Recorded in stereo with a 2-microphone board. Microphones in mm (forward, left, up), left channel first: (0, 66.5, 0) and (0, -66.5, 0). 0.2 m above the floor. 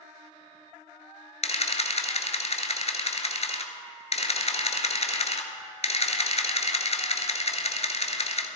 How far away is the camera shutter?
About 1.0 m.